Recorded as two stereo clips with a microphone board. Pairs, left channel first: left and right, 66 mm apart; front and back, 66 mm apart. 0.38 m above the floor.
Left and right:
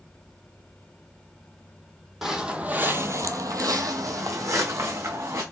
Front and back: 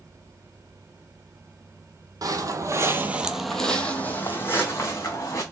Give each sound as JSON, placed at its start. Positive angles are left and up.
{"t": 2.2, "sound": "footsteps", "azimuth_deg": -175, "distance_m": 0.8}